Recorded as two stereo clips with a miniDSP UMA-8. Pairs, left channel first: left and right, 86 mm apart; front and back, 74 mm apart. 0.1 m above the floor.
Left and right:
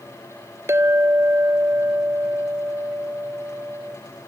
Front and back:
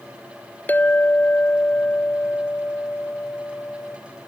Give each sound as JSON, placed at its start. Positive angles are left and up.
{"t": 0.7, "sound": "a clink", "azimuth_deg": -55, "distance_m": 0.9}